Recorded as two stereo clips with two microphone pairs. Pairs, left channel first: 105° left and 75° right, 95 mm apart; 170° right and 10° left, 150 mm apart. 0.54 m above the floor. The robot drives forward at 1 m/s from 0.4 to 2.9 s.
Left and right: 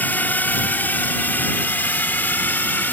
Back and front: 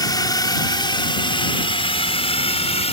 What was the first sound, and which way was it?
A drone, 155° left.